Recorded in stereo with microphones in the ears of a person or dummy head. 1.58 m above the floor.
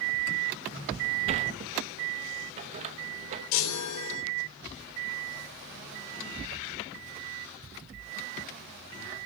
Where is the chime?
80° left, 3.5 m.